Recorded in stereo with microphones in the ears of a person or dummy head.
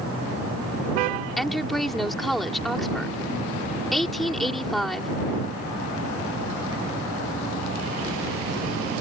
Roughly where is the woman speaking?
Centre.